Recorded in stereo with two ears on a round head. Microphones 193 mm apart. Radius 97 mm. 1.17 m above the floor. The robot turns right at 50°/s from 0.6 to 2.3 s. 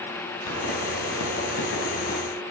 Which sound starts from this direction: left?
A pop, at 0.5 s.